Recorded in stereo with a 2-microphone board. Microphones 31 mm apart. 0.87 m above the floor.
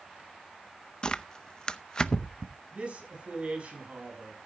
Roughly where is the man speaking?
Right.